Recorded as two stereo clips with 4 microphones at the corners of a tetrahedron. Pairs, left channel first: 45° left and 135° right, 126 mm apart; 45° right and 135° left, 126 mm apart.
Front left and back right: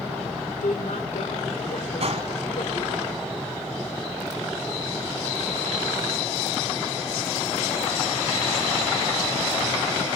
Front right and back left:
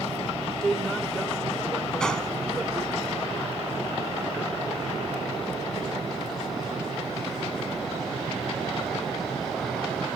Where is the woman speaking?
40° left, 3 m.